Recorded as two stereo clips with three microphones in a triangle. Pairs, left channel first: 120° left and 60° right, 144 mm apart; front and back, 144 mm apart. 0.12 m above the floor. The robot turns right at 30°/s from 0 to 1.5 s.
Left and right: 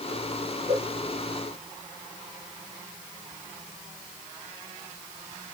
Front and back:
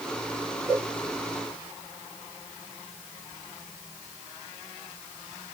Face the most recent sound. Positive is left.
turn(degrees=-80)